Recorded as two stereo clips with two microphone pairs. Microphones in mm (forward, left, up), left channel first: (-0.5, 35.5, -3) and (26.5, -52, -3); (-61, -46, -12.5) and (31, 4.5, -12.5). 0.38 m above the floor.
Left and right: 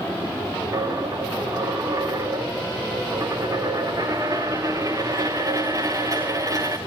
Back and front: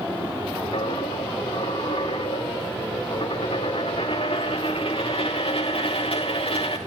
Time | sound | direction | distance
0.7 | a dropped coin | 125° right | 2.5 m